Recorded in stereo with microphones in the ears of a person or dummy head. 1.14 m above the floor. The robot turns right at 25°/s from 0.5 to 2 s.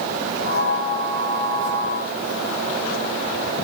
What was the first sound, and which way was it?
Only background noise.